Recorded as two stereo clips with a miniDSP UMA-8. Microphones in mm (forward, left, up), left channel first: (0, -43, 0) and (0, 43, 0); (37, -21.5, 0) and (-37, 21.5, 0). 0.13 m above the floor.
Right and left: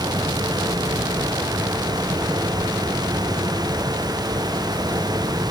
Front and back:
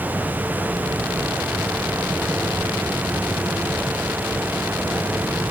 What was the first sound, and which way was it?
Only background noise.